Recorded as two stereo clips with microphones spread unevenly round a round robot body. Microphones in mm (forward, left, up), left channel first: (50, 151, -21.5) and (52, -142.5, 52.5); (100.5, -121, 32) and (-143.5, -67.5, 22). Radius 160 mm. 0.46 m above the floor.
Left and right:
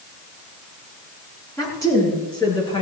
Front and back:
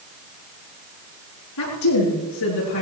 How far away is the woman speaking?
About 8 m.